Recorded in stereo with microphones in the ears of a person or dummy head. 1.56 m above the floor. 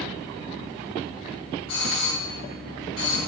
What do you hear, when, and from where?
1.7 s a doorbell: 85° left, 8 m